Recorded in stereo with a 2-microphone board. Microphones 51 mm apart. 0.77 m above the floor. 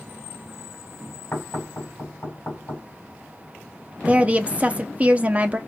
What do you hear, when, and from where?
1.3 s knocking: 40° left (ahead or behind), 4 m
4.0 s a woman speaking: 25° right (ahead or behind), 0.8 m